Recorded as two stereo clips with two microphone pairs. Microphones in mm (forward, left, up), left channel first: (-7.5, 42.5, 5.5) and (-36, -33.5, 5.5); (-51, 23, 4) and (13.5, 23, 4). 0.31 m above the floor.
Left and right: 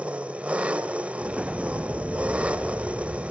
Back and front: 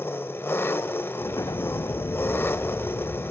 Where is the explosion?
175° left, 0.5 m.